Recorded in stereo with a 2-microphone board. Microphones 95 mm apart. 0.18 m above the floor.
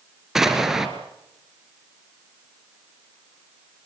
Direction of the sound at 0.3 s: 5° right (ahead or behind).